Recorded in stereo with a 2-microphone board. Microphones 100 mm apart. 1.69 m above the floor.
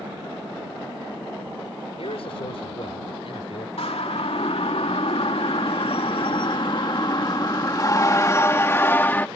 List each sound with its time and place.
2.0 s a man speaking: 70° left (ahead or behind); by 3.7 s 65° left (ahead or behind)
3.8 s a siren: 80° left; by 9.3 s 20° left (ahead or behind)